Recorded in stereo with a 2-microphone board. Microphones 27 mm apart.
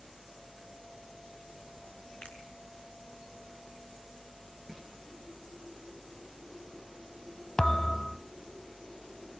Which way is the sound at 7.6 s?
30° left (ahead or behind).